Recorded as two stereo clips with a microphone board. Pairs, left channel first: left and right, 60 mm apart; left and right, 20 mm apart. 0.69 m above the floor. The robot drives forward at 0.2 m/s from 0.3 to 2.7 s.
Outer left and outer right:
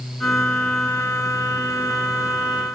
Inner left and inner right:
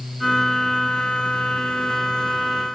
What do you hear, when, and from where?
Only background noise.